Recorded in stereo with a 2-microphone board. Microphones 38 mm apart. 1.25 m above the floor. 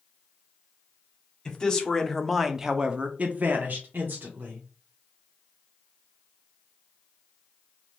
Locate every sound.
1.4 s a man speaking: 20° left (ahead or behind), 0.9 m; by 4.7 s 55° right (ahead or behind), 1.0 m